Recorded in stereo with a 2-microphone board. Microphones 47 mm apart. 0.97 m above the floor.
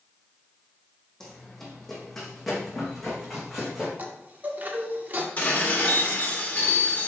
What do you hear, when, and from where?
1.2 s running footsteps: 5° left (ahead or behind), 2.5 m; by 3.9 s 5° right (ahead or behind), 4 m
4.0 s a chime: 35° right (ahead or behind), 1.0 m
5.4 s dishes clattering: 30° left (ahead or behind), 1.6 m